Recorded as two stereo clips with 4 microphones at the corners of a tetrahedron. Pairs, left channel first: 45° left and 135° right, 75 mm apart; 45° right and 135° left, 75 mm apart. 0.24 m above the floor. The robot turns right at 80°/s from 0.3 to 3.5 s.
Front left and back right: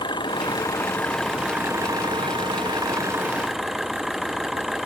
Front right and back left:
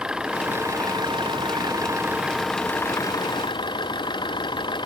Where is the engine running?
55° left; by 4.9 s 50° right.